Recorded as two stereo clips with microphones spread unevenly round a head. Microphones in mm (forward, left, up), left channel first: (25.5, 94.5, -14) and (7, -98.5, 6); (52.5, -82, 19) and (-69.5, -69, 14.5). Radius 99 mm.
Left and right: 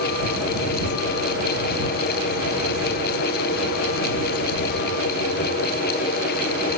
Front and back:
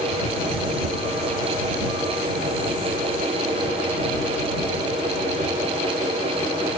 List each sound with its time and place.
Only background noise.